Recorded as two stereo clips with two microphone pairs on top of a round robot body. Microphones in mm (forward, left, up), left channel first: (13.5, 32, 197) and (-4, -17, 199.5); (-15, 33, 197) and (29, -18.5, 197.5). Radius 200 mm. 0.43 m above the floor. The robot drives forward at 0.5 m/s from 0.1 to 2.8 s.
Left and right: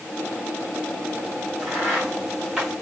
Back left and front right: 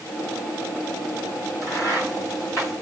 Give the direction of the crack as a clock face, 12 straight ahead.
6 o'clock.